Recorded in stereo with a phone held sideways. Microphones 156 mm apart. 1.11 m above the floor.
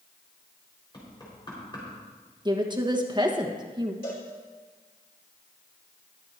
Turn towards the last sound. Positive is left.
turn(degrees=75)  # may be behind; listen again after turning